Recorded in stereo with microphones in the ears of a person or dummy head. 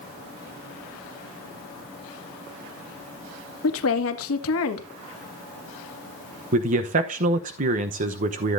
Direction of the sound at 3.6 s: 70° left (ahead or behind).